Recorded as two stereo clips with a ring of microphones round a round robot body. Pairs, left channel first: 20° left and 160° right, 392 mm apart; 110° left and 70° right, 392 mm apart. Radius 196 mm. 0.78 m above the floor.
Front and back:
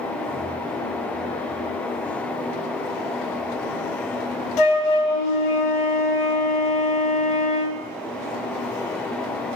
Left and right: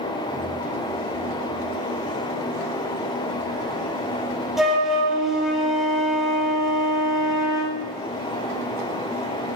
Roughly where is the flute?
Ahead.